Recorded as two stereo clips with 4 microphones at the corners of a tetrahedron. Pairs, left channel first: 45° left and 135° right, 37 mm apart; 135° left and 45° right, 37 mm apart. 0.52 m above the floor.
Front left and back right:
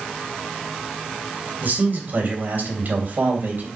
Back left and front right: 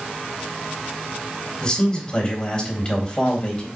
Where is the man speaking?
165° right, 3 m.